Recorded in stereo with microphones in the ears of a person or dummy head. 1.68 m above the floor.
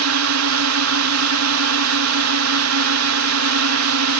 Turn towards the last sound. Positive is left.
turn(degrees=-75)  # may be behind; listen again after turning